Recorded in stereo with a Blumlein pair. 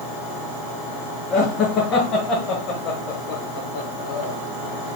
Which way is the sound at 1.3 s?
35° left.